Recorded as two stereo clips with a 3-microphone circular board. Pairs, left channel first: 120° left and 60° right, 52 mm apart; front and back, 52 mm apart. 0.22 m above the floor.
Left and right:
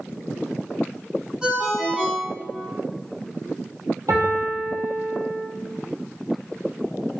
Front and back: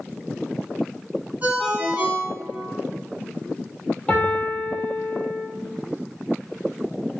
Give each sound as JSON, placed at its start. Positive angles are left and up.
{"t": 1.4, "sound": "a ringtone", "azimuth_deg": -130, "distance_m": 1.4}
{"t": 4.1, "sound": "a piano", "azimuth_deg": -70, "distance_m": 1.2}